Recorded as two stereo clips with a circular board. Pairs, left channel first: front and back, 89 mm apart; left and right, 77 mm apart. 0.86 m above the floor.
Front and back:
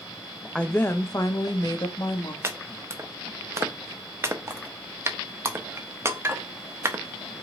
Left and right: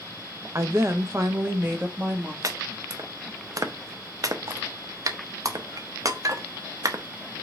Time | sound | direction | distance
0.6 | a woman speaking | 75° right | 0.6 m
2.4 | chopping | 125° right | 0.5 m